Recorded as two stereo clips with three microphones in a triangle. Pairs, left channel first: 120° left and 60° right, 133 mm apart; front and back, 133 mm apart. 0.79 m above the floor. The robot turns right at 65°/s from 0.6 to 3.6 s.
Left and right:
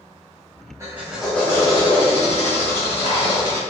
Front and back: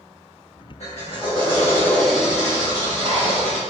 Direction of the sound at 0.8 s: Straight ahead.